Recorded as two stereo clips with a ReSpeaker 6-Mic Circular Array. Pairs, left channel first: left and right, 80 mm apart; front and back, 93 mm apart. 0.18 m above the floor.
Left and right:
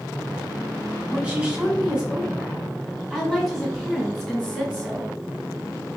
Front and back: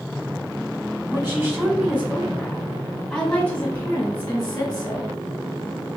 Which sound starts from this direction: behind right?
A woman speaking, at 1.1 s.